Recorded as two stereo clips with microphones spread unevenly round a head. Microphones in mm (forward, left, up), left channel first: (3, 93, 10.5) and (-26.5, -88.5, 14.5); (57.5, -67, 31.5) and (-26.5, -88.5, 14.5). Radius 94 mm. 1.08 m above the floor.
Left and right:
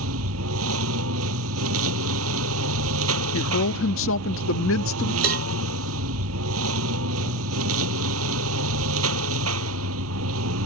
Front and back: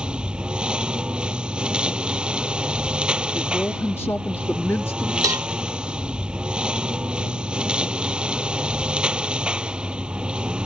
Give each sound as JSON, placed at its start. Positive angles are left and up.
{"t": 0.0, "sound": "a lawn mower", "azimuth_deg": -85}
{"t": 3.3, "sound": "a woman speaking", "azimuth_deg": 95}
{"t": 5.2, "sound": "a cowbell", "azimuth_deg": -115}